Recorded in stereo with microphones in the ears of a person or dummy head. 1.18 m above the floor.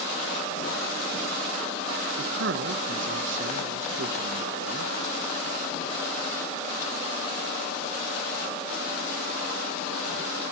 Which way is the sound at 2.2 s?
60° right (ahead or behind).